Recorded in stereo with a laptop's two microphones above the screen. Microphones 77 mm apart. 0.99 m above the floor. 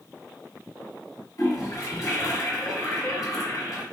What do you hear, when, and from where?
1.4 s a toilet flushing: 55° left (ahead or behind), 1.9 m